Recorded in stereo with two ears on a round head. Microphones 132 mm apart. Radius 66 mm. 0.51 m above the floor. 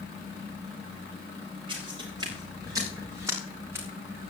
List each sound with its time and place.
1.7 s footsteps: 30° right (ahead or behind), 6 m; by 3.9 s 15° right (ahead or behind), 6 m